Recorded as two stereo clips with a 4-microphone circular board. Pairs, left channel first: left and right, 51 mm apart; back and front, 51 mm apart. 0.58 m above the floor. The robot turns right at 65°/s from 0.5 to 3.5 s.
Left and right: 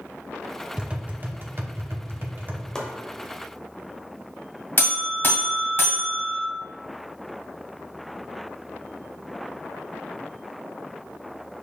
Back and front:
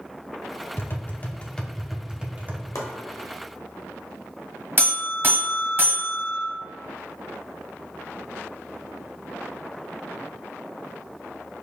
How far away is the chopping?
About 0.8 m.